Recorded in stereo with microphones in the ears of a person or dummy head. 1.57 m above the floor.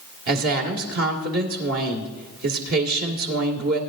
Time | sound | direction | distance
0.3 | a woman speaking | 70° right (ahead or behind) | 2 m